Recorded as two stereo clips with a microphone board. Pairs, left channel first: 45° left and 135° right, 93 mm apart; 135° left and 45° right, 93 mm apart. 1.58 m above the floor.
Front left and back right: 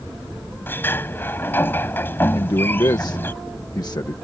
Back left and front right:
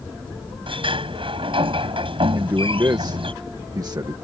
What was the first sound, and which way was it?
A sliding door, 20° right.